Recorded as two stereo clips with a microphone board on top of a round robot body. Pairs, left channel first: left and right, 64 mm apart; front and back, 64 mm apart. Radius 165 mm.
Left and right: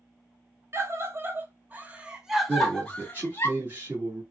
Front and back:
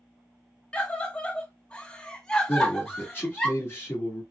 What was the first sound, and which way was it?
A scream, 65° right.